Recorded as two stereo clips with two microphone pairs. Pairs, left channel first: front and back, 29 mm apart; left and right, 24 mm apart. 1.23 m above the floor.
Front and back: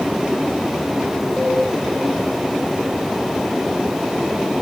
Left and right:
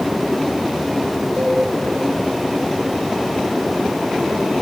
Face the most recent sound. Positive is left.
turn(degrees=-120)